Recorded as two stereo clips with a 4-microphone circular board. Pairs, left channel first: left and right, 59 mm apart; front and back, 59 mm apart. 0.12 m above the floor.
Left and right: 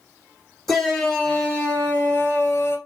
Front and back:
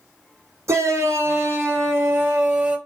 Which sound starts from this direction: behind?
A shout, at 0.7 s.